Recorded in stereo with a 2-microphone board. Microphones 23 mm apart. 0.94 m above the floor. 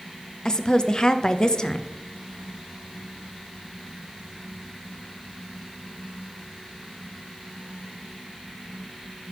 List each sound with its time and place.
0.5 s a woman speaking: 35° left (ahead or behind), 0.6 m